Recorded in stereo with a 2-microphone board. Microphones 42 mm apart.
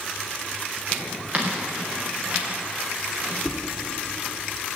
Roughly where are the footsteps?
Right.